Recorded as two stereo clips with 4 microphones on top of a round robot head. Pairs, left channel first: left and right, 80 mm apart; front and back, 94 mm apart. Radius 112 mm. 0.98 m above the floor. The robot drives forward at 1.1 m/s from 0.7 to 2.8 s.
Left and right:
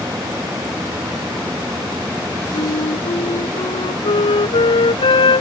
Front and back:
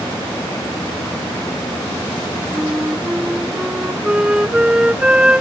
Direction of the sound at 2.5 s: 95° left.